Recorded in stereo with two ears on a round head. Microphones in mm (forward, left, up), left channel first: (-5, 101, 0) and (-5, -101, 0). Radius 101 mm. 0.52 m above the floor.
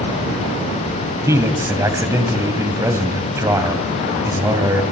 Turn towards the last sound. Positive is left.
turn(degrees=-15)  # may be behind; listen again after turning